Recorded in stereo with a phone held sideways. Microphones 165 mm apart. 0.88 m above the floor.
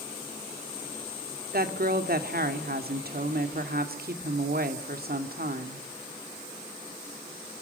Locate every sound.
1.5 s a woman speaking: 65° right (ahead or behind), 2 m